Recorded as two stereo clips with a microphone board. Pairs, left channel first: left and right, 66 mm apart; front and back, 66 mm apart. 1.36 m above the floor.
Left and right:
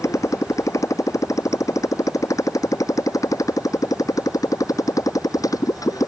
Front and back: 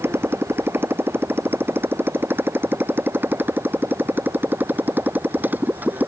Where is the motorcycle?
125° left; by 6.1 s 120° left.